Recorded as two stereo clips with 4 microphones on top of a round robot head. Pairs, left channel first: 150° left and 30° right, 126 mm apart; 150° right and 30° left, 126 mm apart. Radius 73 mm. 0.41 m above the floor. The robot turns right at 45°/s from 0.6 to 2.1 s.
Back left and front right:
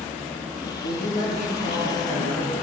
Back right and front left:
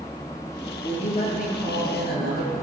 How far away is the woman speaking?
About 8.5 m.